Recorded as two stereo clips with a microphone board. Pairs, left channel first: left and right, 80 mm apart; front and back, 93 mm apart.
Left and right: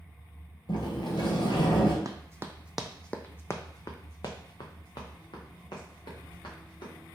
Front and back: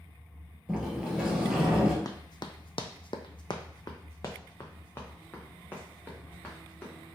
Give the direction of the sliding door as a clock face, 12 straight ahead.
9 o'clock.